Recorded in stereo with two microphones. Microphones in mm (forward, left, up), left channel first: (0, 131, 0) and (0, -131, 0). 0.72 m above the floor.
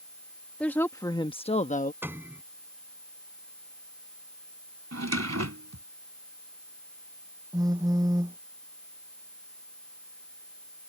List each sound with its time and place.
0.6 s a woman speaking: 5° left (ahead or behind); by 1.9 s 30° left (ahead or behind)
2.0 s a piano: 10° right (ahead or behind)
4.9 s a drawer: 80° right
7.5 s a phone buzzing: 15° right (ahead or behind)